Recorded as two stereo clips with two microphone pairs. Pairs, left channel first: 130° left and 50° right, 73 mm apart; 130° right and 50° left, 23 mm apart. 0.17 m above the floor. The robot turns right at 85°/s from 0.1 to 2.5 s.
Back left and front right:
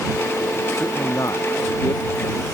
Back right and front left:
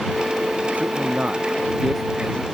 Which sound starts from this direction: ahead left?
A man speaking, at 0.8 s.